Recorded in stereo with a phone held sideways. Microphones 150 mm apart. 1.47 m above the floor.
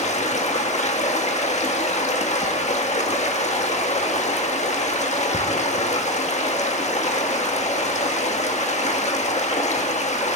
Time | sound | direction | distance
0.0 | running water | 50° left (ahead or behind) | 1.4 m